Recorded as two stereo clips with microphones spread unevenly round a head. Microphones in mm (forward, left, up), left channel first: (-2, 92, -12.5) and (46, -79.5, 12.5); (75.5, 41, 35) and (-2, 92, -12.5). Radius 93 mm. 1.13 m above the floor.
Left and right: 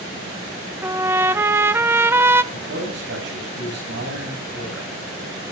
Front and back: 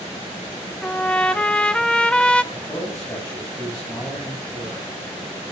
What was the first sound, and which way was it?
A trumpet, 15° right.